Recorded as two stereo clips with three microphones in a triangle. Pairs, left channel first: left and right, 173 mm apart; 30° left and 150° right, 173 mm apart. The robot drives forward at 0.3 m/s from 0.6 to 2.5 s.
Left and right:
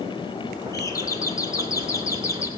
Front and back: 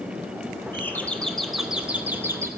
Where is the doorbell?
75° left, 0.9 m; by 2.5 s 150° left, 1.0 m.